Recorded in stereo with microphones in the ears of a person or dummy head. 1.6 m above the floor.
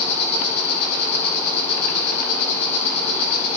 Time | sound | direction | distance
0.0 | an insect | 15° right (ahead or behind) | 1.8 m